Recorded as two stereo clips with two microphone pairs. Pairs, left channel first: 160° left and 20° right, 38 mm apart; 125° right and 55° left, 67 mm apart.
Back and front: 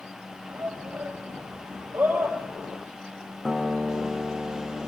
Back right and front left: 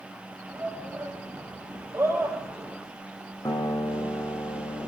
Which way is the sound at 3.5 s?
105° right.